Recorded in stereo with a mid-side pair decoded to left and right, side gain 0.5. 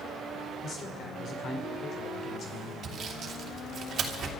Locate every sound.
0.6 s a man speaking: 55° left, 3.5 m
2.8 s sawing: 50° right, 2.5 m